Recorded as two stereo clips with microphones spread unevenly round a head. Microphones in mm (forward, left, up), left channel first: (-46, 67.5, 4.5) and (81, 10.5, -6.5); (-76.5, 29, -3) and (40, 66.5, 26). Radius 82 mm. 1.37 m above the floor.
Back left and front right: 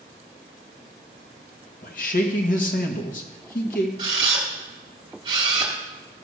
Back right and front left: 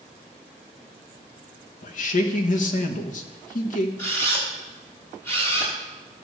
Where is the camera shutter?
80° right, 2 m.